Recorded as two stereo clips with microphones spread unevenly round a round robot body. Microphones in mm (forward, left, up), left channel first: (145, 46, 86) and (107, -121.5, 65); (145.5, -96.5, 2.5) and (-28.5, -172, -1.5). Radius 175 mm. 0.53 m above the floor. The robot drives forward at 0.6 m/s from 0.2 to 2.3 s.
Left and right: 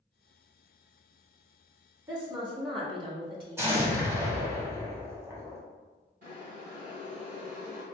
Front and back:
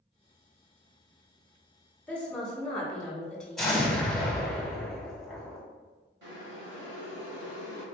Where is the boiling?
145° right, 1.7 m.